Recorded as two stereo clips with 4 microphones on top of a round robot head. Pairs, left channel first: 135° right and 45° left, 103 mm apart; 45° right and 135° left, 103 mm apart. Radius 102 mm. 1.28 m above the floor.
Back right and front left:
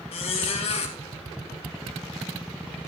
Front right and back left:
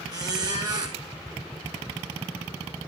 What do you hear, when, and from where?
0.1 s a squeak: 170° right, 2.5 m